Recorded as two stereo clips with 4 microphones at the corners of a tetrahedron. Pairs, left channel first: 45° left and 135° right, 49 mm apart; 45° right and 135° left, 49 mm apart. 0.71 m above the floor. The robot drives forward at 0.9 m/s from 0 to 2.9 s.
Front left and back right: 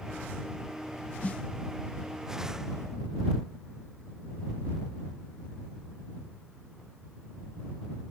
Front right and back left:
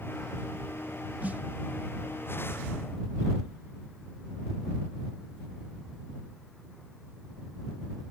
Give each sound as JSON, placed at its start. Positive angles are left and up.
{"t": 1.2, "sound": "a snare drum", "azimuth_deg": 90}